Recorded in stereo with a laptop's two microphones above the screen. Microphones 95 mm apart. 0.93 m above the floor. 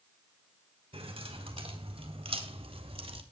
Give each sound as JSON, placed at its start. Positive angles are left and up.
{"t": 0.9, "sound": "keys jangling", "side_deg": -80, "distance_m": 5.0}